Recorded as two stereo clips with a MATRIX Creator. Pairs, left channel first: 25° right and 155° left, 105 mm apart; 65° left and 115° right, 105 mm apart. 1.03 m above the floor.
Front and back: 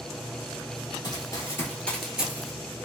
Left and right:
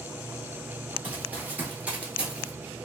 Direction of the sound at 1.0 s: 45° right.